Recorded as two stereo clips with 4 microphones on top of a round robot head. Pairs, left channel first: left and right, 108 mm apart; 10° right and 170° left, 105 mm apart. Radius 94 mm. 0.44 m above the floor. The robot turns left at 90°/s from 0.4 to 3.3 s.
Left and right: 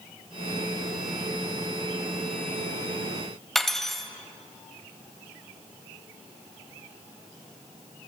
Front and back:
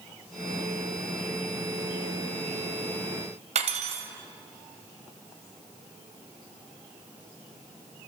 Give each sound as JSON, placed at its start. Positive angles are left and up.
{"t": 3.5, "sound": "cutlery clinking", "azimuth_deg": 175, "distance_m": 1.8}